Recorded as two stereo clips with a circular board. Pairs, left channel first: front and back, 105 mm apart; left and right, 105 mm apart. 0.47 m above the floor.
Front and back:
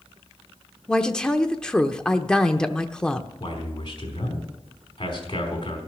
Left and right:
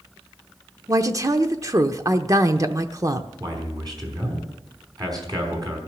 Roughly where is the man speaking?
Ahead right.